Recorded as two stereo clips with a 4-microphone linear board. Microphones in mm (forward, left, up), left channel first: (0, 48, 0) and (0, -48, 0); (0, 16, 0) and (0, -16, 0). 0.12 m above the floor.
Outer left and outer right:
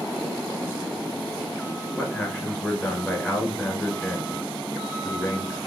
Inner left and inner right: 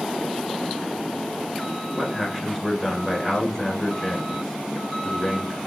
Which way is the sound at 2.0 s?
15° left (ahead or behind).